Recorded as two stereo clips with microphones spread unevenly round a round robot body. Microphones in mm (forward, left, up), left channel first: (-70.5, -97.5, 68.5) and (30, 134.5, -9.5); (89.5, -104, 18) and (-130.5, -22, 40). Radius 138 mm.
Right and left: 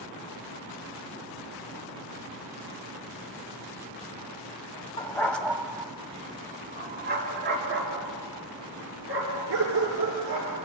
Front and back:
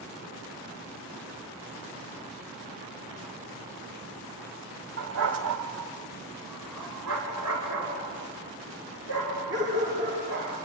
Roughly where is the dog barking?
Behind.